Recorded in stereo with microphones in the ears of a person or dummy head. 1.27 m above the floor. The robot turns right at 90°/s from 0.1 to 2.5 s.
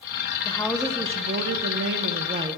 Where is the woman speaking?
150° left, 1.0 m; by 2.6 s 25° right, 1.0 m.